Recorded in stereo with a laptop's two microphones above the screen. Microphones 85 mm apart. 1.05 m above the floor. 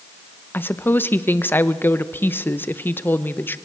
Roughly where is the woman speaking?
Left.